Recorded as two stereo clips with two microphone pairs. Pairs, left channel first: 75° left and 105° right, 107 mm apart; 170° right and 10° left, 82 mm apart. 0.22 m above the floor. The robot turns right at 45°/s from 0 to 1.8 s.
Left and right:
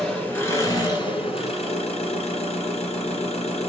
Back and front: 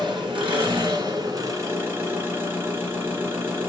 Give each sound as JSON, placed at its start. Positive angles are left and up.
{"t": 0.0, "sound": "an engine running", "azimuth_deg": -15, "distance_m": 3.0}